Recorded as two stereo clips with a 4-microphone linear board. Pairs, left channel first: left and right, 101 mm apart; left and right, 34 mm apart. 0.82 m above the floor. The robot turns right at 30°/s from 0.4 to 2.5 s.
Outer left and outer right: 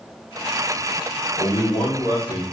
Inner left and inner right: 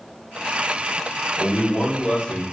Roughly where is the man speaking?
Left.